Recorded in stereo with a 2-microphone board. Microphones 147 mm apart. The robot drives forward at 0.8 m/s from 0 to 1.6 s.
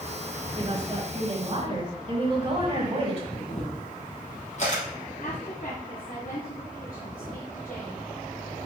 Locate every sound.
0.6 s a woman speaking: 30° right (ahead or behind), 3.5 m; by 3.2 s 40° right (ahead or behind), 3 m
3.3 s a camera shutter: 50° left (ahead or behind), 4 m
5.2 s a woman speaking: 55° left (ahead or behind), 2.5 m